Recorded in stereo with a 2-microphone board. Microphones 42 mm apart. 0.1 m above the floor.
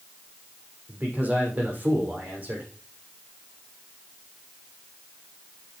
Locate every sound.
0.9 s a man speaking: 35° right (ahead or behind), 5.5 m